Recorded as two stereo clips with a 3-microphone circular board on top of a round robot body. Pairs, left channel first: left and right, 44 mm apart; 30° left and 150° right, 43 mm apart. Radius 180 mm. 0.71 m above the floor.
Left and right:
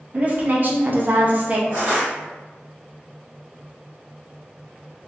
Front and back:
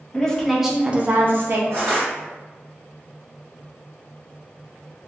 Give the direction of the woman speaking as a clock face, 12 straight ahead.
1 o'clock.